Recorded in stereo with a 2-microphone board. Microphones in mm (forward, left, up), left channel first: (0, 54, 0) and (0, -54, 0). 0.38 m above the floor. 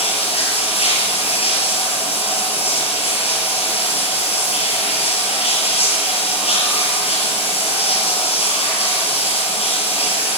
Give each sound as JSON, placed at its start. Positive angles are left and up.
{"t": 0.0, "sound": "running water", "side_deg": 65, "distance_m": 5.5}